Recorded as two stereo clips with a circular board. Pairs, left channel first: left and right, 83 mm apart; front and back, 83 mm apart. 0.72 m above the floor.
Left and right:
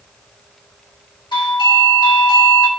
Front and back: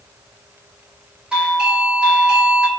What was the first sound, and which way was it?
A doorbell, 105° left.